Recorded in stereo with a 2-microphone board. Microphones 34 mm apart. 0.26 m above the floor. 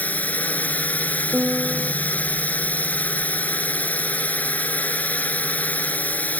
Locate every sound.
0.0 s a drone: 55° left (ahead or behind)
1.3 s a piano: 45° right (ahead or behind)